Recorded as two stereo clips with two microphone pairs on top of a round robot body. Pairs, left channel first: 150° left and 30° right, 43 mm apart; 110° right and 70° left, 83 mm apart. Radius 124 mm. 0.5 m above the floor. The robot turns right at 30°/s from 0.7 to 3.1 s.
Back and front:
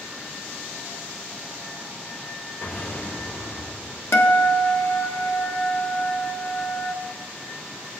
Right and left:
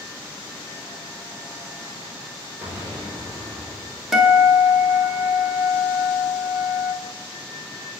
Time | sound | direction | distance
2.6 | an explosion | 135° left | 5 m
4.1 | a guitar | 160° left | 1.6 m